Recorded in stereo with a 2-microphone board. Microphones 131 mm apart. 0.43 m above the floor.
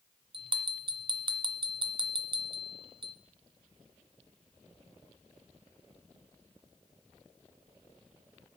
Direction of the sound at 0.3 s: 40° right (ahead or behind).